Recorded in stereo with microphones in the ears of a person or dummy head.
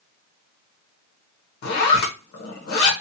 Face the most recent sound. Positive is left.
turn(degrees=60)  # may be behind; listen again after turning